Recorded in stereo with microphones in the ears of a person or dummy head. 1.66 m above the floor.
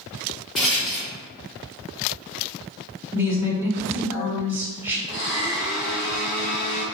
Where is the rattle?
Centre (ahead or behind), 0.6 m.